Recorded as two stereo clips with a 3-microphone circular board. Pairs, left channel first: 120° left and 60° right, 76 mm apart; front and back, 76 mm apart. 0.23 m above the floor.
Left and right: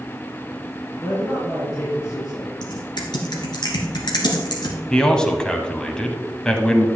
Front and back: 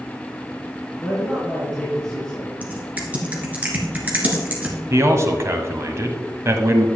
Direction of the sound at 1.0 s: 80° left.